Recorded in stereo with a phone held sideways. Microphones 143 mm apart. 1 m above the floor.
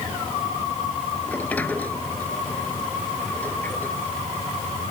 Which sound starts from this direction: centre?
A sliding door, at 1.3 s.